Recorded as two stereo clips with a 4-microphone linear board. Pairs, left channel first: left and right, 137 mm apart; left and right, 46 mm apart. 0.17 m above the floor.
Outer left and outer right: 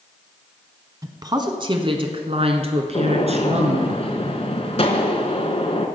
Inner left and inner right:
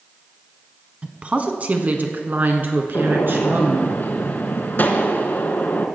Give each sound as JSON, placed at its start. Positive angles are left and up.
{"t": 1.0, "sound": "a woman speaking", "side_deg": -30, "distance_m": 1.2}
{"t": 2.9, "sound": "a gunshot", "side_deg": 55, "distance_m": 1.3}